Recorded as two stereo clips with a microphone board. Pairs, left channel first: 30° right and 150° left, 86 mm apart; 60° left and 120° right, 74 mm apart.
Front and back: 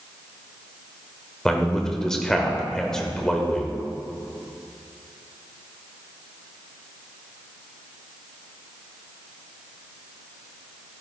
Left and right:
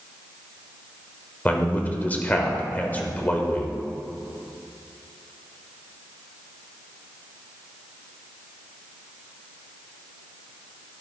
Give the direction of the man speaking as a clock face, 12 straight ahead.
11 o'clock.